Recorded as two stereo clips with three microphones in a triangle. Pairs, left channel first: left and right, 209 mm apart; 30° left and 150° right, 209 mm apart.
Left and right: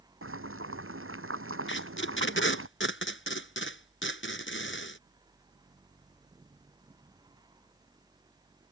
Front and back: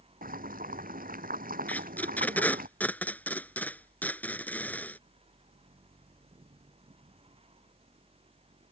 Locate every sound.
0.2 s boiling: 100° right
1.7 s tape being pulled: 115° left